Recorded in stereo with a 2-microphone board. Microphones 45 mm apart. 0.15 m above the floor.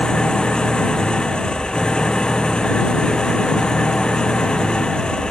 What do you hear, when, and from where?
0.0 s an engine running: 20° left (ahead or behind)